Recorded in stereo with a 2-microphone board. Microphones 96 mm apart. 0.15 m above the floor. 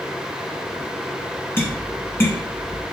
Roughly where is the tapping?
Left.